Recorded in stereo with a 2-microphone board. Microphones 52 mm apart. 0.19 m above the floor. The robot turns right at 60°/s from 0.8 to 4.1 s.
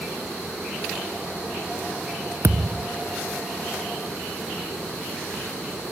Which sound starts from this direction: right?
A thud, at 2.4 s.